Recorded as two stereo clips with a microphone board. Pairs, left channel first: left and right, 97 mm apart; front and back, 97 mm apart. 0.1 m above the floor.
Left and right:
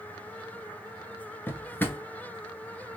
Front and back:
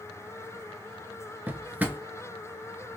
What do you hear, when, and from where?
1.5 s a drawer: 130° left, 0.5 m